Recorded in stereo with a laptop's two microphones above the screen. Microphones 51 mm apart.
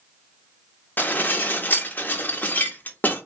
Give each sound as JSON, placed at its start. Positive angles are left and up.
{"t": 1.0, "sound": "dishes clattering", "side_deg": 35, "distance_m": 0.7}